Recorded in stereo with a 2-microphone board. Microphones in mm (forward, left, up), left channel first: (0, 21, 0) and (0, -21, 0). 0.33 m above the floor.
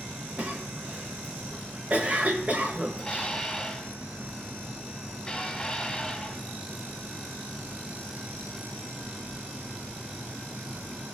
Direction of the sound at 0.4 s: 35° right (ahead or behind).